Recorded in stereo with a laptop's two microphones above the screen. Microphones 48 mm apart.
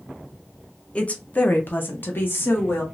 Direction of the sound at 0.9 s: 25° left (ahead or behind).